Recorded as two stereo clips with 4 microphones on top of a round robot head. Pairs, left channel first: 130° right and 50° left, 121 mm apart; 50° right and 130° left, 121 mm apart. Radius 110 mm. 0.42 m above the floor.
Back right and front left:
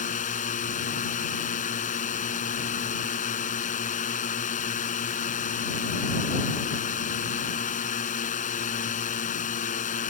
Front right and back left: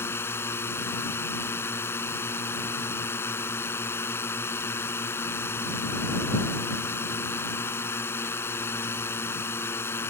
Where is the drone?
120° right.